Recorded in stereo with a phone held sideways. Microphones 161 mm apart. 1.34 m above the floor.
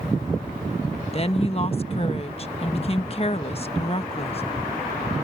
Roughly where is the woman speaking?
Left.